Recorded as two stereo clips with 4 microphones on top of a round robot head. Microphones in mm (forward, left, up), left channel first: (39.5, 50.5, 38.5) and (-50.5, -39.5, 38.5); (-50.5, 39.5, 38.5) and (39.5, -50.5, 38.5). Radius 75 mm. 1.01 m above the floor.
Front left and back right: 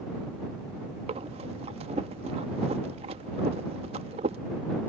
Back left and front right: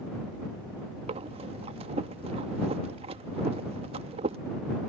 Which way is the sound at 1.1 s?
90° right.